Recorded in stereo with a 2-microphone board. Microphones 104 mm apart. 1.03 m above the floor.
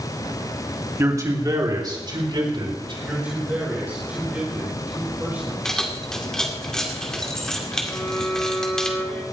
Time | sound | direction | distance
1.0 | a man speaking | 30° right (ahead or behind) | 2.5 m
3.0 | a man speaking | 15° right (ahead or behind) | 4.5 m
5.7 | keys jangling | 5° left (ahead or behind) | 2.5 m
7.9 | a violin | 15° left (ahead or behind) | 5 m